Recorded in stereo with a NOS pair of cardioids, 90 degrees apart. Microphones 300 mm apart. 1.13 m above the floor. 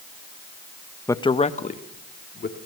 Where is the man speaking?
10° left, 1.0 m; by 2.6 s 35° left, 3 m.